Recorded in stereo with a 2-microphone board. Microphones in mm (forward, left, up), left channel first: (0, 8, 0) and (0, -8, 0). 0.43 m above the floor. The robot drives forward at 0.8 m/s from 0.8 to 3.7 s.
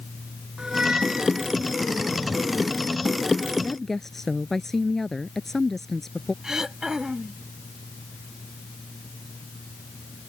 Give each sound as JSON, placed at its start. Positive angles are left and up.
{"t": 0.6, "sound": "a squeak", "side_deg": -60}
{"t": 3.6, "sound": "a woman speaking", "side_deg": 20}
{"t": 6.4, "sound": "throat clearing", "side_deg": -40}